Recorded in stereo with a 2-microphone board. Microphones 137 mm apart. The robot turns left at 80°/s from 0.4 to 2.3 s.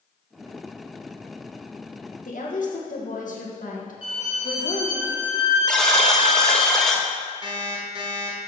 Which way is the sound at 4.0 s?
45° left (ahead or behind).